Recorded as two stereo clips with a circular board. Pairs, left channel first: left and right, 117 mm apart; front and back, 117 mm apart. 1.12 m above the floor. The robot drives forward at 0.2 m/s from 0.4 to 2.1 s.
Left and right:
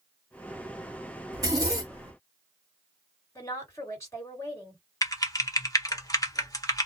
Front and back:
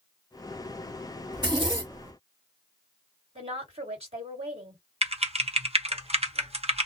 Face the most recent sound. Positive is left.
turn(degrees=150)